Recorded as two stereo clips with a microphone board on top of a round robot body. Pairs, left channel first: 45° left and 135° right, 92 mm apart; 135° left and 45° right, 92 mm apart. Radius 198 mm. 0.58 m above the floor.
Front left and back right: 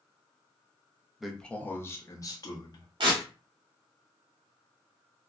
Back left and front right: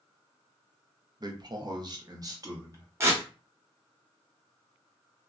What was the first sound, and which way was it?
A man speaking, 50° right.